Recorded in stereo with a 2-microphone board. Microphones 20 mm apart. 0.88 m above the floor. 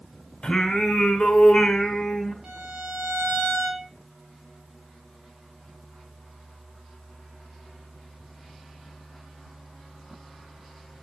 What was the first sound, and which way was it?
Singing, 50° left (ahead or behind).